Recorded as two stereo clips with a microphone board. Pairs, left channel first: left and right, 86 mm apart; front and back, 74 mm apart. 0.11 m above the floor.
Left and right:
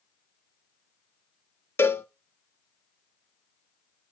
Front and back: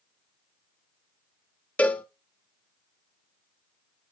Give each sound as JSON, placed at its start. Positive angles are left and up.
{"t": 1.8, "sound": "a cowbell", "azimuth_deg": 55, "distance_m": 0.6}